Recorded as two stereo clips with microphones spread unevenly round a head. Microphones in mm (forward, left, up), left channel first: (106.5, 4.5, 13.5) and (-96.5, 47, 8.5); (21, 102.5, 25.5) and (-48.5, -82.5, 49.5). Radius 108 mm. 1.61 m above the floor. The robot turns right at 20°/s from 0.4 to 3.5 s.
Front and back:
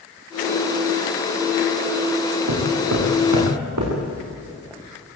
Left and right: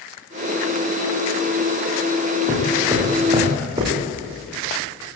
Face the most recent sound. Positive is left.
turn(degrees=-175)